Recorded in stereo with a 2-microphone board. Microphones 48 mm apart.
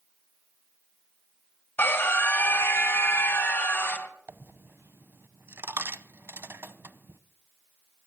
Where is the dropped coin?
55° right (ahead or behind), 0.8 m.